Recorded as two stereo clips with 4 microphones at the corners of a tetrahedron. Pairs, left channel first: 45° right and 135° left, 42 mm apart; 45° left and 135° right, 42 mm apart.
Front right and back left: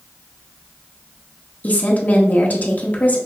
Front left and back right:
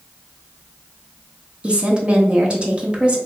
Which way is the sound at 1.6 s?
75° right.